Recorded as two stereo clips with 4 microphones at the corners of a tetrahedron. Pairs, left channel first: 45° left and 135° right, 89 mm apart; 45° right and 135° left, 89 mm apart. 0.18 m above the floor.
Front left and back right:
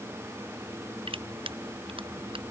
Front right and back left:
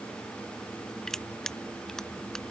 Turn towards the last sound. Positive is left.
turn(degrees=-130)